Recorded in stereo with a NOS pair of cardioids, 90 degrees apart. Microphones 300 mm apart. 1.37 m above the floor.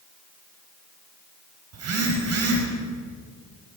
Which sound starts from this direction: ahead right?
A phone buzzing, at 1.7 s.